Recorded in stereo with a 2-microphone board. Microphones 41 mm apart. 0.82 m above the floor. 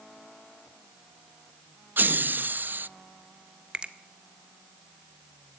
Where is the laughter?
50° right (ahead or behind), 0.5 m.